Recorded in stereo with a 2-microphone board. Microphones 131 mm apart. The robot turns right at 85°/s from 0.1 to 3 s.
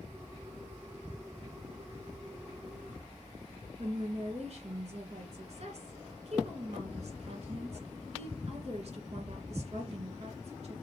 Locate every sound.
3.8 s a woman speaking: 55° right (ahead or behind), 2.5 m